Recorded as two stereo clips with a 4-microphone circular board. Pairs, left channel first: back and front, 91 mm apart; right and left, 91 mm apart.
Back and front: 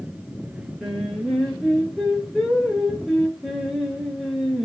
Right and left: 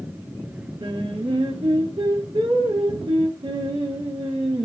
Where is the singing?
90° left, 1.7 m.